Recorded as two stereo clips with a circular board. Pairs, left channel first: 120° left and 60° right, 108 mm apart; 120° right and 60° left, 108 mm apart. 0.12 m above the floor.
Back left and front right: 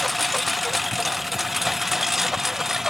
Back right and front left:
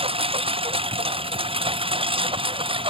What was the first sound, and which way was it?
A lawn mower, 30° left.